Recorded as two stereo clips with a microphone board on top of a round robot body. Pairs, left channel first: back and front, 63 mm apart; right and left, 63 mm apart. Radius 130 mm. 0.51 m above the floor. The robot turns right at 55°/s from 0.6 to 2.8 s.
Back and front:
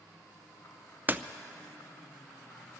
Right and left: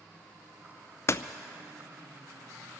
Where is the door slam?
55° right, 0.6 m; by 1.2 s 45° right, 0.6 m.